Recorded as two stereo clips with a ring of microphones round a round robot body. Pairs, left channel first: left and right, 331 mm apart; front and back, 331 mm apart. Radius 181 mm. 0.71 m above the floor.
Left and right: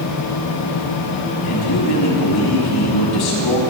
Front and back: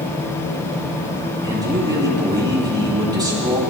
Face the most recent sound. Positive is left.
turn(degrees=105)